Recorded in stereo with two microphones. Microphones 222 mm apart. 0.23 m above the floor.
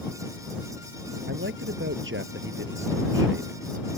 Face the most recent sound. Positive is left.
turn(degrees=-60)  # may be behind; listen again after turning